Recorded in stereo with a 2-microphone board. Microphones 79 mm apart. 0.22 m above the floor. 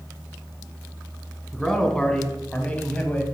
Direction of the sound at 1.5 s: 5° left (ahead or behind).